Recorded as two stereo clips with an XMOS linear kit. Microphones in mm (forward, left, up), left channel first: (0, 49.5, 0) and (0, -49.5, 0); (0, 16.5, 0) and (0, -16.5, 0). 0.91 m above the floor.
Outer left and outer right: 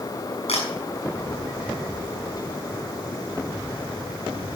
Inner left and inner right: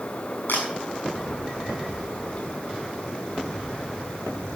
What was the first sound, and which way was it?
A camera shutter, 85° left.